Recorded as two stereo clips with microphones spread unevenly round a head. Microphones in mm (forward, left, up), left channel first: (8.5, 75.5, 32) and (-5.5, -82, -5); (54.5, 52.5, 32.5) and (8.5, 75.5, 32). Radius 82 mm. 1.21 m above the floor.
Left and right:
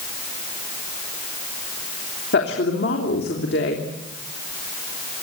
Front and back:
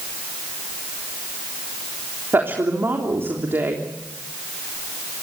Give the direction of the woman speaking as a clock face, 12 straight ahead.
8 o'clock.